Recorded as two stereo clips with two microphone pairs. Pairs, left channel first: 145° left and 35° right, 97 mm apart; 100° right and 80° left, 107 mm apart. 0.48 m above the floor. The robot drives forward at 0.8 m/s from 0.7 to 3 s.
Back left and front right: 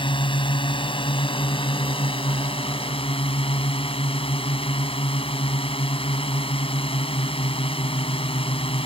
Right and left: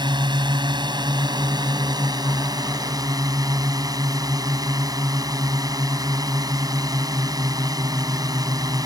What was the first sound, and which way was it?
A drone, 120° left.